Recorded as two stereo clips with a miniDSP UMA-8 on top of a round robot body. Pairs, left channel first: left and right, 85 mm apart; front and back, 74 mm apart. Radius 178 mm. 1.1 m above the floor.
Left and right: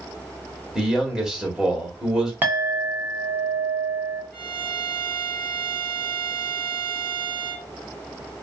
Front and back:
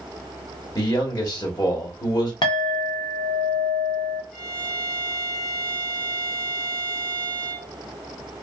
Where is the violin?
80° right, 1.0 m.